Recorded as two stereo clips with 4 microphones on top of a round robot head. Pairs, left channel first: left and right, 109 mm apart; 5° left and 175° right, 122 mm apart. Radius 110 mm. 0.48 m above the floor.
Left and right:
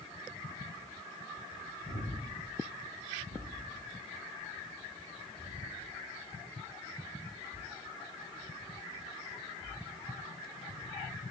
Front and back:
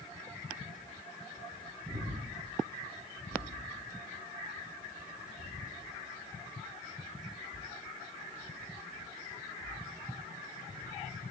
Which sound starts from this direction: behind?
Breathing, at 1.9 s.